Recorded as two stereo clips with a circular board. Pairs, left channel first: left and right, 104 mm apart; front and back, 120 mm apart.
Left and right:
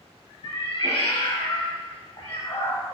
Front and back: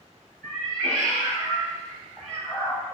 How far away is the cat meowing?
About 1.2 m.